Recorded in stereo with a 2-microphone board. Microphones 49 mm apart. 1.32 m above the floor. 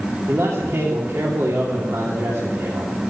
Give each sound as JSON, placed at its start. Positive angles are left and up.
{"t": 0.3, "sound": "a man speaking", "side_deg": -70, "distance_m": 3.0}